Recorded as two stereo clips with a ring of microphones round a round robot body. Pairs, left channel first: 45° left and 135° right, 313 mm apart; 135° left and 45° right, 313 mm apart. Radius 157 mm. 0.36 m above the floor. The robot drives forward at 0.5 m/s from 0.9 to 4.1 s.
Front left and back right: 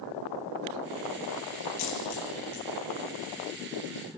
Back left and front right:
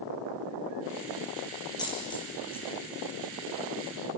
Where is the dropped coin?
55° left, 5 m; by 2.6 s 60° left, 4.5 m.